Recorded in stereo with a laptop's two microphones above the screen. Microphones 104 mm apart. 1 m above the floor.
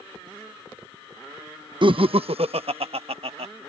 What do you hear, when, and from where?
1.8 s laughter: 50° right (ahead or behind); by 3.5 s 70° right (ahead or behind)